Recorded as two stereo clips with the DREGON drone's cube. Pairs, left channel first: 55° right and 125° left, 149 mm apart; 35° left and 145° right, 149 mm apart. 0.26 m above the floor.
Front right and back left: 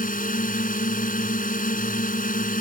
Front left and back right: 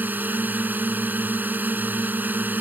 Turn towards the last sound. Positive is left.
turn(degrees=-70)